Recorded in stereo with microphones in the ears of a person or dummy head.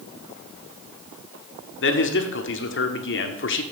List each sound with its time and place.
1.8 s a man speaking: 55° left (ahead or behind), 1.0 m